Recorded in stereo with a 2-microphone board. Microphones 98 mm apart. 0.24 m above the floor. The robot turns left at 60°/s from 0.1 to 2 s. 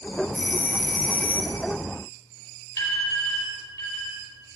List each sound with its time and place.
0.3 s a doorbell: 20° left (ahead or behind), 1.7 m; by 1.6 s 10° left (ahead or behind), 1.7 m
2.8 s an alarm: 35° left (ahead or behind), 4.5 m